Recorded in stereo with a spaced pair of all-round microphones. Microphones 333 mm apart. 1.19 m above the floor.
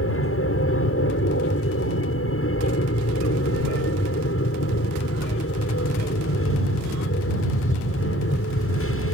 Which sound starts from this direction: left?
An aircraft, at 0.0 s.